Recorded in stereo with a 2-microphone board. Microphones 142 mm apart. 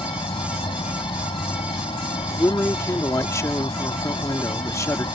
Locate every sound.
0.0 s an insect: 35° left (ahead or behind)
2.3 s a man speaking: 20° left (ahead or behind)